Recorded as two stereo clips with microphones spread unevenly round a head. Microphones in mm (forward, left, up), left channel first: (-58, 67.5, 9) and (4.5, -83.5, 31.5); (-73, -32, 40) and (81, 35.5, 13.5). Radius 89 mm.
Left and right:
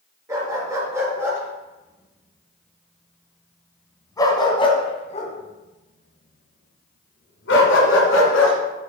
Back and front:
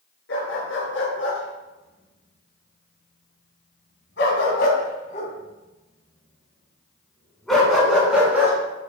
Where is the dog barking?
135° right, 4.5 m; by 8.6 s 105° left, 3.5 m.